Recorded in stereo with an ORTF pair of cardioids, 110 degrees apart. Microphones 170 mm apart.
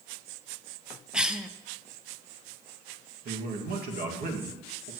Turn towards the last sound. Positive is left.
turn(degrees=-65)